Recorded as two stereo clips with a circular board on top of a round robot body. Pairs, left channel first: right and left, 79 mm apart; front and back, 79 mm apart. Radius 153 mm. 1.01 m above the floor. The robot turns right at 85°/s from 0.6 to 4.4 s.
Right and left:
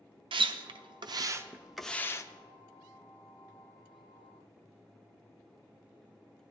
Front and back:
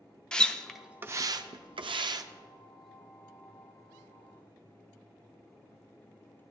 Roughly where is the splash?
Left.